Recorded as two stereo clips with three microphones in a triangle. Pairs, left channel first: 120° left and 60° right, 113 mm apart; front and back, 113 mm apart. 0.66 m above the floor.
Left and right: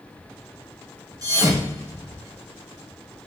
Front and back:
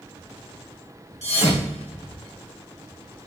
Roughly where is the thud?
Ahead.